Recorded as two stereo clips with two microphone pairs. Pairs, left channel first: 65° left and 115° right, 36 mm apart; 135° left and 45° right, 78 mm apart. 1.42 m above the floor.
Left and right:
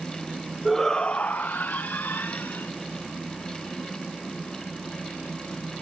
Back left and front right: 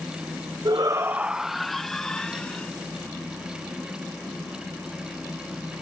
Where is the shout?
25° right; by 2.7 s 60° left.